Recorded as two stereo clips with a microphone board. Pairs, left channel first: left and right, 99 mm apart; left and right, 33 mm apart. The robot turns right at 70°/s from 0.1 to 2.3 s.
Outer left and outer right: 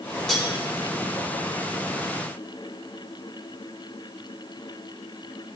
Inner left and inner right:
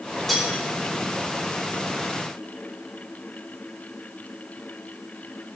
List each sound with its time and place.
0.3 s cutlery clinking: 5° left (ahead or behind), 3.5 m; by 0.5 s 15° left (ahead or behind), 3.5 m